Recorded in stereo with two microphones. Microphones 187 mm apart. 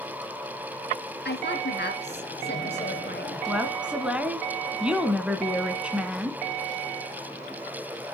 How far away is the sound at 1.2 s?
About 2.5 m.